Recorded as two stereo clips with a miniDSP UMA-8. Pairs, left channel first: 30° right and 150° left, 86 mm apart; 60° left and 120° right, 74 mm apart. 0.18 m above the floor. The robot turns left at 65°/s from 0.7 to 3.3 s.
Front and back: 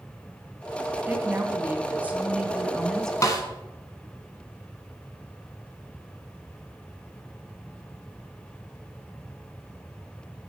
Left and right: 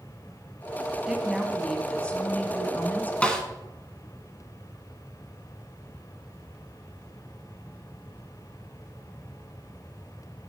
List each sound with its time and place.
1.1 s a woman speaking: 175° left, 1.3 m; by 3.1 s 40° left, 1.3 m
3.2 s a snare drum: 5° right, 1.5 m; by 3.4 s 10° right, 1.5 m